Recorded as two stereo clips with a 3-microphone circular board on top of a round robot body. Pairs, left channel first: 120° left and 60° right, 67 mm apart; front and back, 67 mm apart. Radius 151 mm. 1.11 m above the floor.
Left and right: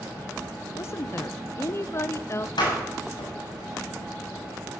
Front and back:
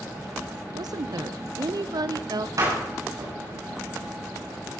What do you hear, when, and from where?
0.7 s a woman speaking: 165° left, 0.8 m
2.6 s a door slam: 135° left, 7.5 m